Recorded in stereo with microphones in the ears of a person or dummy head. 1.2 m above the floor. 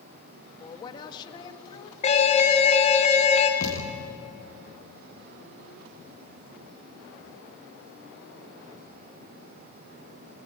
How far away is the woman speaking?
About 1.9 m.